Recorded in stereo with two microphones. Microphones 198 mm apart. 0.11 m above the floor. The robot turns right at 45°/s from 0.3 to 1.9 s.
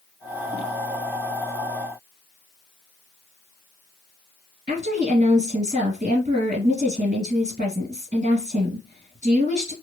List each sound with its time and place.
4.7 s a woman speaking: 40° right (ahead or behind), 1.8 m